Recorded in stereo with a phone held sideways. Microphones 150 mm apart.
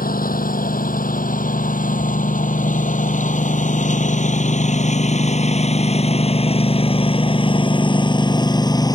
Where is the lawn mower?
70° left (ahead or behind); by 9.0 s 25° left (ahead or behind).